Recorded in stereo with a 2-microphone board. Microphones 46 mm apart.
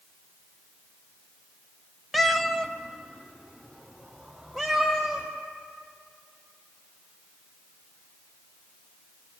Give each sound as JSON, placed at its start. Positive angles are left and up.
{"t": 2.1, "sound": "a cat meowing", "side_deg": 0, "distance_m": 0.6}